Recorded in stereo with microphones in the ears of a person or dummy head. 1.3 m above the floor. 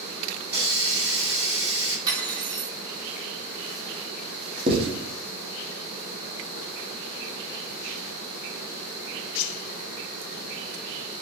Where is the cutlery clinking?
25° right (ahead or behind), 0.9 m.